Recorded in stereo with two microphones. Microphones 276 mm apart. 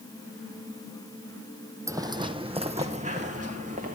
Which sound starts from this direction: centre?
Footsteps, at 1.9 s.